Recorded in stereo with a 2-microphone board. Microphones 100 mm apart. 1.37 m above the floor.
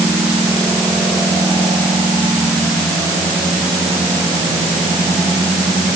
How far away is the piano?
I don't hear a piano.